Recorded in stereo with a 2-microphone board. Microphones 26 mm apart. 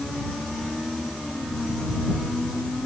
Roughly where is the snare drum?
No snare drum in this recording.